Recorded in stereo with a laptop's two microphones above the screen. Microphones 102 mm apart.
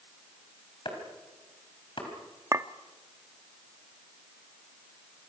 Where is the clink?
30° right (ahead or behind), 0.8 m.